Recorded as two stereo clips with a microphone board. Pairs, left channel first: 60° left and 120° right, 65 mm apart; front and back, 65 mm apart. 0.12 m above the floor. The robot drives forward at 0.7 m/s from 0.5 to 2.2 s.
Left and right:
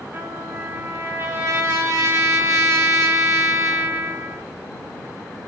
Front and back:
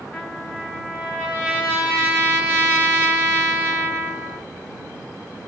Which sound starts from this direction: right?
A trumpet, at 0.1 s.